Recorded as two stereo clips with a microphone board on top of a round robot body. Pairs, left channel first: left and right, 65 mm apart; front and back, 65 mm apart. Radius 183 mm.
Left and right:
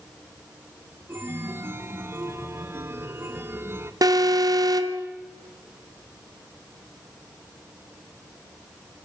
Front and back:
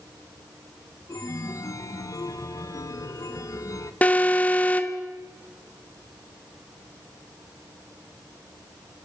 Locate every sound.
1.1 s a chime: 35° right, 1.4 m
4.0 s an alarm: 65° right, 1.6 m